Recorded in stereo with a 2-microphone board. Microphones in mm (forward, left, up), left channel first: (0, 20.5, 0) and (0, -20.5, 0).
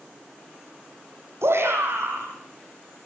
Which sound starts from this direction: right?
A shout, at 1.4 s.